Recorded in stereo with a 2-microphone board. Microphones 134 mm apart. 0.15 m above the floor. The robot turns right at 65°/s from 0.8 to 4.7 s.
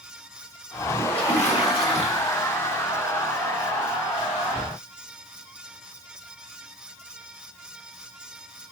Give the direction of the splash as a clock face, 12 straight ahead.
12 o'clock.